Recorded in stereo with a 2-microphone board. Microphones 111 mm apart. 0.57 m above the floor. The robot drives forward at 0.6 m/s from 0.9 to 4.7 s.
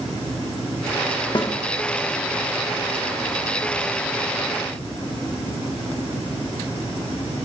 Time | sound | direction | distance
1.4 | a snare drum | 40° left (ahead or behind) | 0.9 m